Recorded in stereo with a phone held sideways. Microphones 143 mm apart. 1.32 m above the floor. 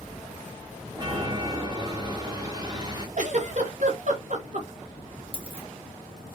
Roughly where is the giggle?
Right.